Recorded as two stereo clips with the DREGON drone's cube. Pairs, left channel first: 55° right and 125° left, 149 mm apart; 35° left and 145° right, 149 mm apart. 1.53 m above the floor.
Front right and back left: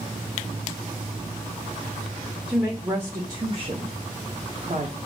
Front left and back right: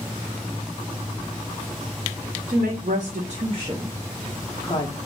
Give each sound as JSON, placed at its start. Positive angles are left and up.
{"t": 2.5, "sound": "a woman speaking", "azimuth_deg": -155, "distance_m": 0.9}